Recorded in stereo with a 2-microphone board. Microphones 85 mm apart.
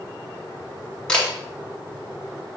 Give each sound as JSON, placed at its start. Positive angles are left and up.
{"t": 1.1, "sound": "a camera shutter", "side_deg": 10, "distance_m": 2.5}